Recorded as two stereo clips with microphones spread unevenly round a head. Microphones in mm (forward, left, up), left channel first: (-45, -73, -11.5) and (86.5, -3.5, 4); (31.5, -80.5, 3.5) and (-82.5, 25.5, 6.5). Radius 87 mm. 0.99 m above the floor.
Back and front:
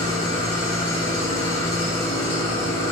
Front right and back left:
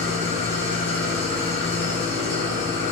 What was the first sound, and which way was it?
An engine running, 95° right.